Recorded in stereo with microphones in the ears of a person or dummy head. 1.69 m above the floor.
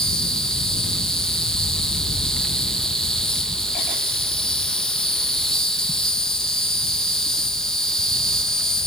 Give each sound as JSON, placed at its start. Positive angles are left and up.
{"t": 0.0, "sound": "an insect", "side_deg": 0}